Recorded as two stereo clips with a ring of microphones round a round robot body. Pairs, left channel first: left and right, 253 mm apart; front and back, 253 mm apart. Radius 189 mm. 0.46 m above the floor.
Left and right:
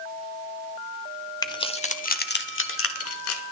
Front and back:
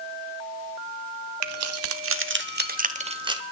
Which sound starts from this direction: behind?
Keys jangling, at 1.4 s.